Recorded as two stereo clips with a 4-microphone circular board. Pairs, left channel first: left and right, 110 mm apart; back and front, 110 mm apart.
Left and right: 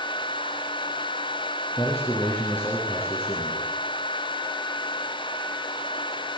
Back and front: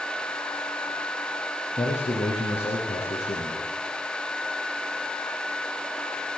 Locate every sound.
1.8 s a man speaking: 155° left, 6.5 m